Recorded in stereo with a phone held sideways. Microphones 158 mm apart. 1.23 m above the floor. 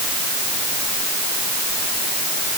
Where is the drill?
I don't hear a drill.